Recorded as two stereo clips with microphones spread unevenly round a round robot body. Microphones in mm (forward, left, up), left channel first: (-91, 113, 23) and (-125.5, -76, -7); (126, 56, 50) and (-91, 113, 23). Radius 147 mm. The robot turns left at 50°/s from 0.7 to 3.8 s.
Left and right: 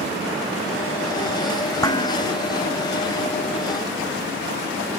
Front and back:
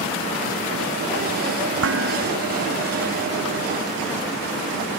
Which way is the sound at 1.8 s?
150° left.